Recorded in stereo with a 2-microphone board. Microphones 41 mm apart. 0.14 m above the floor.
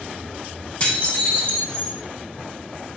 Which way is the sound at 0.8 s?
30° left (ahead or behind).